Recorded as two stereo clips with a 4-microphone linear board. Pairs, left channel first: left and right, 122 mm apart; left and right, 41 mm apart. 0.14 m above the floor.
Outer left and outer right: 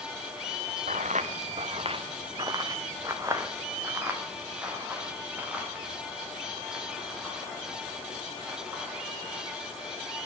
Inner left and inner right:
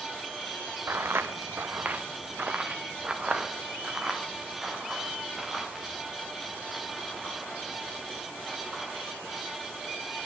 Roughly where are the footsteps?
Right.